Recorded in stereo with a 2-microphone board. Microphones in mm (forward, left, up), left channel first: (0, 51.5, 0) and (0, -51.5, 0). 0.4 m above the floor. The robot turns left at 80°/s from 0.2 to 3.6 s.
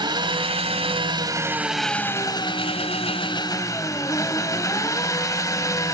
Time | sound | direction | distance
0.0 | an engine running | 50° right | 1.6 m